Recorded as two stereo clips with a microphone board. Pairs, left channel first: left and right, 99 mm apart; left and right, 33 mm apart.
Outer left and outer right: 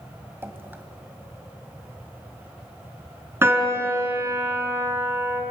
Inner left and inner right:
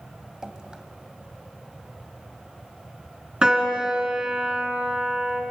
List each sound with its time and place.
0.4 s dripping: 20° right (ahead or behind), 1.6 m
3.4 s a piano: 25° right (ahead or behind), 2.5 m